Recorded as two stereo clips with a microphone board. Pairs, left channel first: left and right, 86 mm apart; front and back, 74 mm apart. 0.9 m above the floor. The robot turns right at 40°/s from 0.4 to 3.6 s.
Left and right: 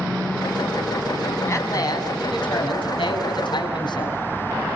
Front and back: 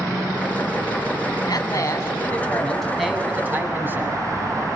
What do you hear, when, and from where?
1.5 s a man speaking: 30° left, 6.5 m; by 4.2 s 120° left, 6.5 m